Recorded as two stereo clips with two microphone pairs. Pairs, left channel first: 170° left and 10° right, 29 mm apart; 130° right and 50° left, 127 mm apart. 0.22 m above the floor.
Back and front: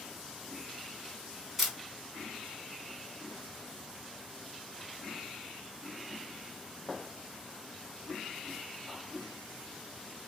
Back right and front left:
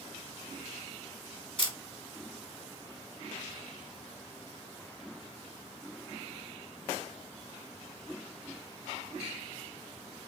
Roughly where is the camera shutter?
Right.